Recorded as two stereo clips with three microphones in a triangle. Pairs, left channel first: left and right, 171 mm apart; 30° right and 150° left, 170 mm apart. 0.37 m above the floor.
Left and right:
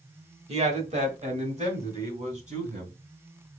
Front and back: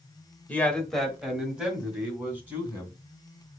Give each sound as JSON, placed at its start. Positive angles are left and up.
{"t": 0.5, "sound": "a man speaking", "azimuth_deg": -105, "distance_m": 1.1}